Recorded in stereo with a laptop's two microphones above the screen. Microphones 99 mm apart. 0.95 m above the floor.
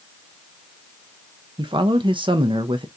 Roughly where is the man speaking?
Right.